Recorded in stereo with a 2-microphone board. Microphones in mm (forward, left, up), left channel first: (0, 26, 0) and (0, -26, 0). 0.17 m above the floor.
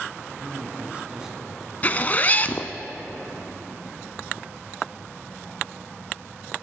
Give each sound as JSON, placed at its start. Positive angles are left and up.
{"t": 0.4, "sound": "a man speaking", "side_deg": -40, "distance_m": 1.6}
{"t": 1.8, "sound": "a zipper", "side_deg": 30, "distance_m": 0.5}